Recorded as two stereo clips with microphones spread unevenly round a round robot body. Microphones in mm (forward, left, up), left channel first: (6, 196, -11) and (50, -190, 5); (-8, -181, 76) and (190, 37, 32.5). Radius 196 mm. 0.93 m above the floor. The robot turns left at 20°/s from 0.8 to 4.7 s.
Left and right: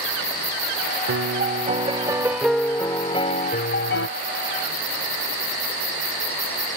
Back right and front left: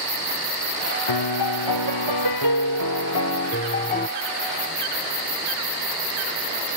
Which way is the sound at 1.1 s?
145° right.